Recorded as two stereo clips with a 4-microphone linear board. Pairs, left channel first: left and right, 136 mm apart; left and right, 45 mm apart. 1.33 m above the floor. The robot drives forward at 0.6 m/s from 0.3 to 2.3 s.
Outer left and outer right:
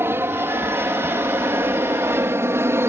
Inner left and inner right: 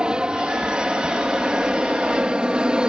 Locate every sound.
0.0 s an aircraft: 20° right (ahead or behind)